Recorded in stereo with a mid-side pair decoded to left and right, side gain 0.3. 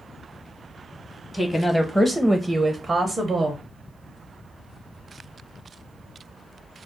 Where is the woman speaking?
35° left, 0.8 m; by 3.6 s 65° right, 0.9 m.